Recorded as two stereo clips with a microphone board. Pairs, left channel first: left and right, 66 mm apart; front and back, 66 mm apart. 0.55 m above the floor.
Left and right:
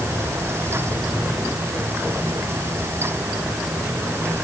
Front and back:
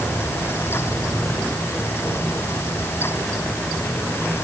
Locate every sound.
Only background noise.